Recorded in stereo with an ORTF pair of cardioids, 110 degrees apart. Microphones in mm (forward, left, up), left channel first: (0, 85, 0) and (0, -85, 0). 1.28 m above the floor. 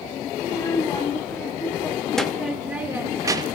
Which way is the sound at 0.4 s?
20° left.